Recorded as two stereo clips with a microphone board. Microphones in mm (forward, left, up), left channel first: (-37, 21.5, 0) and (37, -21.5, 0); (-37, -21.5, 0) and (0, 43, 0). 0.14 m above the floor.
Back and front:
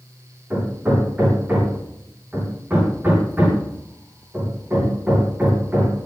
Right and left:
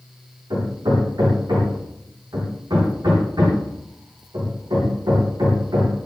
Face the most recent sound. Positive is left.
turn(degrees=40)